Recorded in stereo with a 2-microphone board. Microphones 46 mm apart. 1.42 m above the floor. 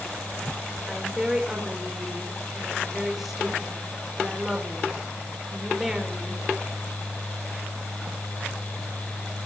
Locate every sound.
0.9 s a woman speaking: 5° right (ahead or behind), 5 m